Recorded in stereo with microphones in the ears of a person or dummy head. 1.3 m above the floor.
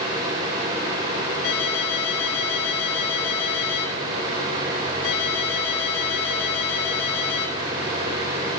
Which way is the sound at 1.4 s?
80° left.